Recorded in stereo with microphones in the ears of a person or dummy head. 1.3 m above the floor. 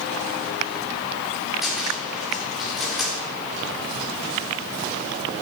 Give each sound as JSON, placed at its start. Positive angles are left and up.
{"t": 1.6, "sound": "a cupboard door", "side_deg": -5, "distance_m": 1.9}